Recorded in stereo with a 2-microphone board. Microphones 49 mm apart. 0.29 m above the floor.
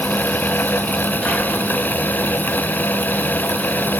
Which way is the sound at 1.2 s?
10° left (ahead or behind).